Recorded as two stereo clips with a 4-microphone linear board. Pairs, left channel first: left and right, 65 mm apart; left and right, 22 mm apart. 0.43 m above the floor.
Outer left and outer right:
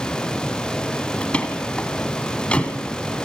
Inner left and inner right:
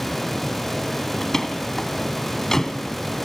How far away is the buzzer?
I don't hear a buzzer.